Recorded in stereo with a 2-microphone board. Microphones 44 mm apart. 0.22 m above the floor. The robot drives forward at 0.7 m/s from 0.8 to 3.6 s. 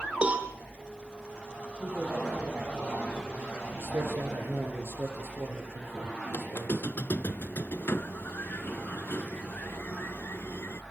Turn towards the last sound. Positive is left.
turn(degrees=60)  # may be behind; listen again after turning